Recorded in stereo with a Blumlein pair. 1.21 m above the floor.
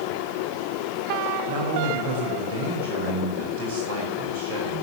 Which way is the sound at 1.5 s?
55° right.